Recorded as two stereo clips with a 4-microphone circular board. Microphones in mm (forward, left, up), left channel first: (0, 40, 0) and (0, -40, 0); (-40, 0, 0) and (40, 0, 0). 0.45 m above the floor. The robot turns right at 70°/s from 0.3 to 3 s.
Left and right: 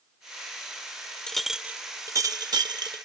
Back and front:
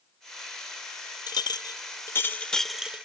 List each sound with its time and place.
1.3 s a clink: 170° left; by 3.0 s 70° right